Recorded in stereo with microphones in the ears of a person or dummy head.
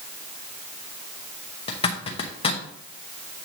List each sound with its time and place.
1.7 s a zipper: 25° left (ahead or behind), 1.0 m